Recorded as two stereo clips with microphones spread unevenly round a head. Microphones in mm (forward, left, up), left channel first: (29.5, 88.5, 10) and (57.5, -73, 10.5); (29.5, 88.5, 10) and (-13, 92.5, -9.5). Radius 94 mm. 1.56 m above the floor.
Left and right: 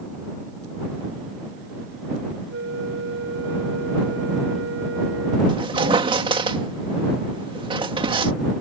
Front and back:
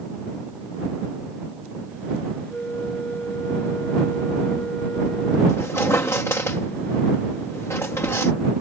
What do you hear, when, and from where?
2.5 s a flute: 80° right
5.5 s a squeak: 20° right